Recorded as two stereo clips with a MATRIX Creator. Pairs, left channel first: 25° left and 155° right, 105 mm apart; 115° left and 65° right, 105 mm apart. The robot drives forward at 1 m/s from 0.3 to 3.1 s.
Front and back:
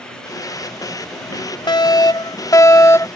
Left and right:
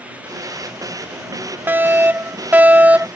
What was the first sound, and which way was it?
A fire alarm, 5° right.